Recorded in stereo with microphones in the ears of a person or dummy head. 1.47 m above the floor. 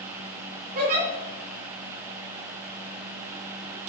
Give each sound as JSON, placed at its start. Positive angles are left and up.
{"t": 0.8, "sound": "a giggle", "side_deg": -45, "distance_m": 3.5}